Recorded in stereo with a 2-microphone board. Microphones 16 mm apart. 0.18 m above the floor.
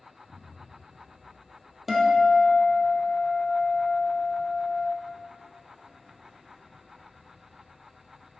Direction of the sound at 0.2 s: 45° right (ahead or behind).